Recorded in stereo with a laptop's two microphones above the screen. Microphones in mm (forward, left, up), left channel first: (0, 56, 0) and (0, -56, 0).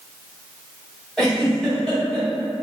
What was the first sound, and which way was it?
A giggle, 5° left (ahead or behind).